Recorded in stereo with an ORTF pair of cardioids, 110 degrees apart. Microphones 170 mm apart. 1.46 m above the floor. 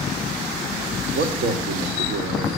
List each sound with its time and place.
1.1 s a man speaking: 60° right, 2.5 m